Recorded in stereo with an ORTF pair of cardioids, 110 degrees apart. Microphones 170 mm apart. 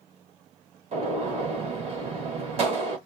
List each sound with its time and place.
0.9 s a gunshot: 40° right, 2.0 m